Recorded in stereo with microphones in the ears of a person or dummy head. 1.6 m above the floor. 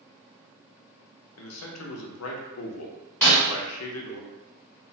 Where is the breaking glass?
10° left (ahead or behind), 1.5 m.